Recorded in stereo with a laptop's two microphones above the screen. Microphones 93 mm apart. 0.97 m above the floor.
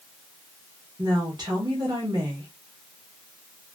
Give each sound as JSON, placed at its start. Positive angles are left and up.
{"t": 1.0, "sound": "a woman speaking", "side_deg": -45, "distance_m": 1.1}